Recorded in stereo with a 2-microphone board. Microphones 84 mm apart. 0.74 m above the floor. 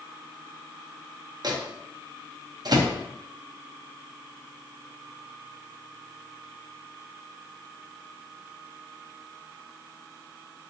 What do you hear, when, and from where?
1.4 s a microwave: 55° right (ahead or behind), 0.5 m